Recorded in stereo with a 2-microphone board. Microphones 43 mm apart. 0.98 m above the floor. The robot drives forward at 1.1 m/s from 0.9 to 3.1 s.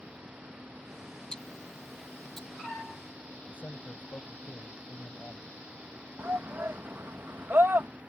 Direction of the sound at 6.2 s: 65° right (ahead or behind).